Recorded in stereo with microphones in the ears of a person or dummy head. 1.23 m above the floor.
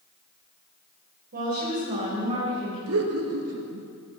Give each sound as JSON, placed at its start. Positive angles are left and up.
{"t": 1.3, "sound": "a woman speaking", "side_deg": -45, "distance_m": 4.5}
{"t": 2.9, "sound": "laughter", "side_deg": -75, "distance_m": 2.0}